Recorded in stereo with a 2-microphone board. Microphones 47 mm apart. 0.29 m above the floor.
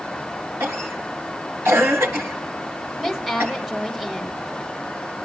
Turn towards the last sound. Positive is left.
turn(degrees=-5)  # may be behind; listen again after turning